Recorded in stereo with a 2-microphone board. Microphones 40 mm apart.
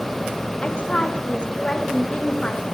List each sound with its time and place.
0.6 s a woman speaking: 25° left (ahead or behind), 1.3 m